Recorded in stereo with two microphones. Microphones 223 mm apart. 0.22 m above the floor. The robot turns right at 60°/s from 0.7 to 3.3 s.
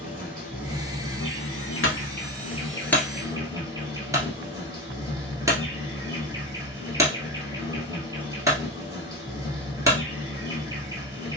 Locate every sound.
0.0 s an insect: 40° left, 1.6 m; by 11.4 s 165° right, 1.6 m
1.8 s a clunk: 70° left (ahead or behind), 1.3 m; by 10.0 s 15° right (ahead or behind), 1.3 m